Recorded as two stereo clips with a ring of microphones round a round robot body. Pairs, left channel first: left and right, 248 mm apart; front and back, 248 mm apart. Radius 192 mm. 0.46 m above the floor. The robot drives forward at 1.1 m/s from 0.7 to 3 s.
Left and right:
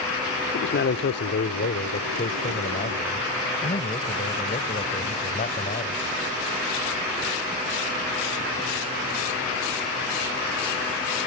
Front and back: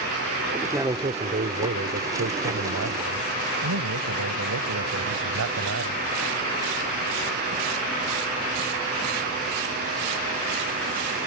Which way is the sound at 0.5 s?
100° left.